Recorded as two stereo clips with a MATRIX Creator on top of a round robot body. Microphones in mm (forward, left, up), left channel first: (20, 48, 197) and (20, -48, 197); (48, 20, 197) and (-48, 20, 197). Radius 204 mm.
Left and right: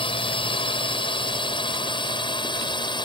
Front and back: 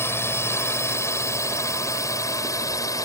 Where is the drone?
65° left; by 3.1 s 55° left.